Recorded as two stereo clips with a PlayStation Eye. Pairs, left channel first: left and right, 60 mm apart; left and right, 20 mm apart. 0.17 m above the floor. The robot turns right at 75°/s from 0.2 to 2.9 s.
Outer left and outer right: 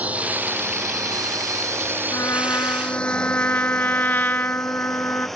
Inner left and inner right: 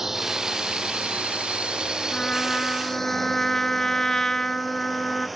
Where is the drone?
25° right (ahead or behind); by 5.4 s centre (ahead or behind).